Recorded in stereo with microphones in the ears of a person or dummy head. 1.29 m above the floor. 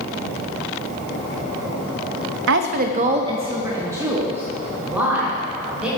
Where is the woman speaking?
65° right (ahead or behind), 0.7 m; by 5.9 s 10° right (ahead or behind), 3.5 m.